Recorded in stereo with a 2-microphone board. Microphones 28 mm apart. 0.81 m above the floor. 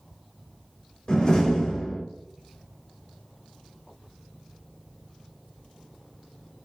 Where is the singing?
No singing in this recording.